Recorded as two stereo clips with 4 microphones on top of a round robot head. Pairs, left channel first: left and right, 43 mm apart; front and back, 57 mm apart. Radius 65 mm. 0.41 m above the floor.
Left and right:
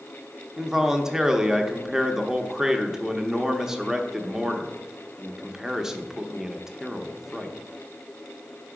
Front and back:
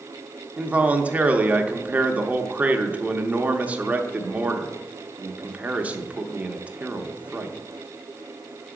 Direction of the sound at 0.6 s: 155° right.